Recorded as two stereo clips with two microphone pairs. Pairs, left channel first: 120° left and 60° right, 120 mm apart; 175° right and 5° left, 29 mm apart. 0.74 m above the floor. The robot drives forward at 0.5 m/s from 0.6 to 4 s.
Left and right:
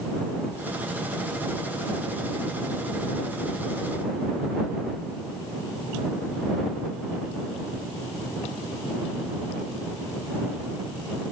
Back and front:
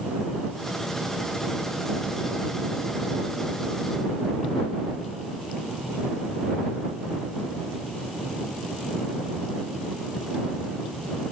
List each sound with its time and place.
Only background noise.